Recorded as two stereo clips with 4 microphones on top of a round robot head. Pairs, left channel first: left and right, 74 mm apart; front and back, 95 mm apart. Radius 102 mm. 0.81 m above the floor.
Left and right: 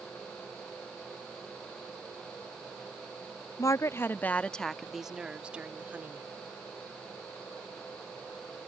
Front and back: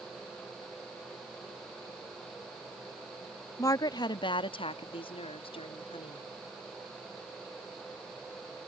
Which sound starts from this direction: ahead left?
A woman speaking, at 3.6 s.